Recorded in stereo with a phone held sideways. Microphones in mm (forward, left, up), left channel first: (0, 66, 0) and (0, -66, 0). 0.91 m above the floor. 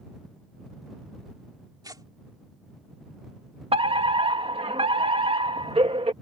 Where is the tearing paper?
30° right (ahead or behind).